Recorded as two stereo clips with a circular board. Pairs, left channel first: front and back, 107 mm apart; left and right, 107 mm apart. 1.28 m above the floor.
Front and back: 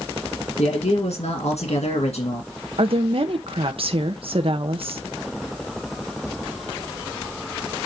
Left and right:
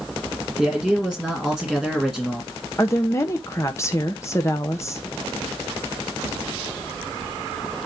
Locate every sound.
0.6 s a man speaking: 5° left, 2.0 m
2.8 s a woman speaking: 150° left, 0.8 m